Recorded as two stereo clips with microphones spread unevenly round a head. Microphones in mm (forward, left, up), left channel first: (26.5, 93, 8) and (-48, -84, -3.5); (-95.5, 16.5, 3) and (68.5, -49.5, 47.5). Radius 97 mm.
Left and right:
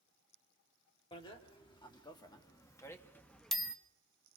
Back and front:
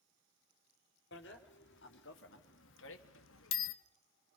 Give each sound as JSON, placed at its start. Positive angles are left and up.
{"t": 1.1, "sound": "a bicycle bell", "azimuth_deg": 130, "distance_m": 2.5}